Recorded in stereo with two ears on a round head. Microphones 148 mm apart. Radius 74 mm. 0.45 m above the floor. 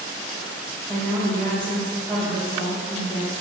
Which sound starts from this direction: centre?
A woman speaking, at 0.9 s.